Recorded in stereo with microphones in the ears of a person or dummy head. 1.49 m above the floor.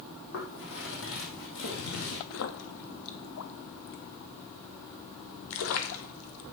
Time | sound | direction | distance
0.3 | footsteps | 65° left (ahead or behind) | 4 m
2.3 | a splash | 85° left | 1.3 m